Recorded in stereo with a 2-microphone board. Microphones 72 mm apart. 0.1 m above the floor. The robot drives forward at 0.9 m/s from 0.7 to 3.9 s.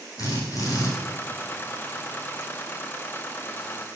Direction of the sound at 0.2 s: 50° left (ahead or behind).